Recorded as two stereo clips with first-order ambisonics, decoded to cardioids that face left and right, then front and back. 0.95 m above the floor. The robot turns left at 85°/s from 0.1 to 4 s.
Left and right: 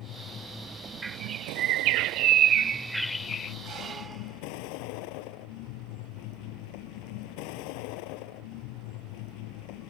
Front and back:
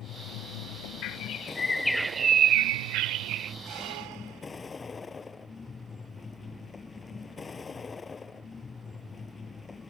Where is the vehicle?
45° left; by 9.9 s 75° left.